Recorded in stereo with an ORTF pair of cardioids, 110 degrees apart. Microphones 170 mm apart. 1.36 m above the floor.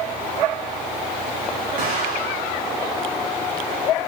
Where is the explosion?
65° right, 4 m.